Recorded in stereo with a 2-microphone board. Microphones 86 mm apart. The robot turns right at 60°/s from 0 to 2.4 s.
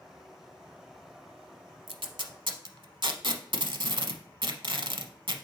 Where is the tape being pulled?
80° right, 0.7 m; by 5.5 s 65° right (ahead or behind), 0.7 m.